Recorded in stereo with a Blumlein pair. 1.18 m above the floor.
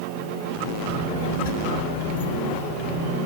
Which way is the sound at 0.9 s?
70° left.